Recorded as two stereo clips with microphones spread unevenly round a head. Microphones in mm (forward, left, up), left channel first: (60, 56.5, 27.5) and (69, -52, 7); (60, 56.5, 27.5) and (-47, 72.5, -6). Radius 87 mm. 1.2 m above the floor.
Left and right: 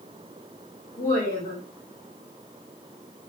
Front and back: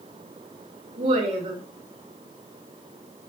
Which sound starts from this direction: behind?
A woman speaking, at 1.0 s.